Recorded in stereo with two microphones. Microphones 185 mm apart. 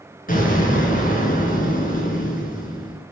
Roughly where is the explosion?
Left.